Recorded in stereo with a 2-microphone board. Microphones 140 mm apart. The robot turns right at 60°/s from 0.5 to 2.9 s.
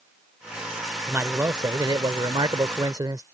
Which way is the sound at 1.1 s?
160° right.